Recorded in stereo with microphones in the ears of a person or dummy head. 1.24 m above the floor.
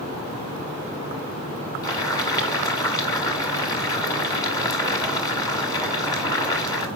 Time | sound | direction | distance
1.8 | boiling | 25° left (ahead or behind) | 1.8 m